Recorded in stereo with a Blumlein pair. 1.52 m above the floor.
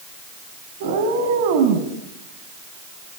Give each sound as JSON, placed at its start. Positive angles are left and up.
{"t": 0.8, "sound": "a cat meowing", "azimuth_deg": -55, "distance_m": 4.5}